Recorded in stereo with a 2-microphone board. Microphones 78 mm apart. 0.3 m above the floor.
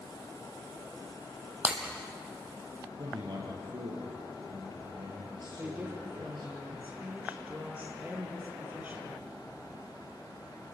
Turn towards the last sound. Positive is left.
turn(degrees=-20)  # may be behind; listen again after turning